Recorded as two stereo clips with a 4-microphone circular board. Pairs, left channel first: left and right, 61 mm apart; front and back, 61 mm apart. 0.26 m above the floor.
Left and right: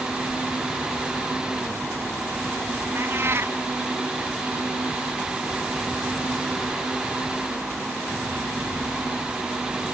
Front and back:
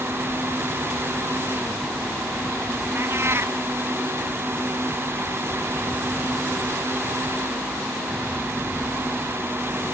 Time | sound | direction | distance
3.0 | a cat meowing | 135° right | ?